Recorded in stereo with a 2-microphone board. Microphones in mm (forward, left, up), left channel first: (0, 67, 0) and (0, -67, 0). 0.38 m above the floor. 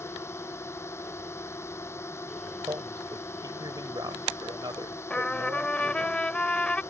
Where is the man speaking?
30° right (ahead or behind).